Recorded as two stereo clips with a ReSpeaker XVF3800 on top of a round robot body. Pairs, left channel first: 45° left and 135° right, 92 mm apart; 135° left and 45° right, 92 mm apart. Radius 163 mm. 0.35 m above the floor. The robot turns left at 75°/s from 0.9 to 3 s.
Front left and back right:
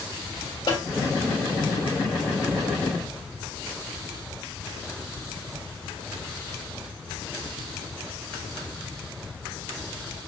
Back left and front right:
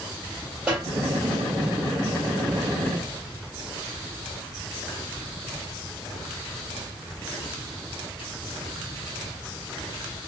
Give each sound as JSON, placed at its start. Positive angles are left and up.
{"t": 0.7, "sound": "a snare drum", "azimuth_deg": 30, "distance_m": 2.0}